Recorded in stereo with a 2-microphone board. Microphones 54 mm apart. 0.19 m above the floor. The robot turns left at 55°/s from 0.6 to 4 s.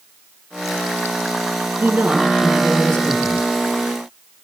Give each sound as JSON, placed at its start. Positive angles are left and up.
{"t": 1.8, "sound": "a woman speaking", "azimuth_deg": -140, "distance_m": 4.0}